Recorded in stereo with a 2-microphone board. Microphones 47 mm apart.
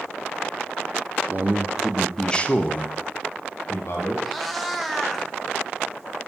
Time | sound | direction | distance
1.3 | a man speaking | 45° right (ahead or behind) | 0.7 m
4.2 | a cat meowing | centre (ahead or behind) | 0.7 m